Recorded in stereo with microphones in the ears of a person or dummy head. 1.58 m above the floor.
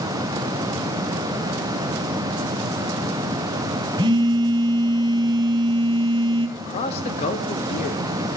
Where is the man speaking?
35° left (ahead or behind), 0.6 m.